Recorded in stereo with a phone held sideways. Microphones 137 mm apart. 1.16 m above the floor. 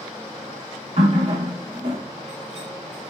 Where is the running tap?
55° right (ahead or behind), 1.4 m.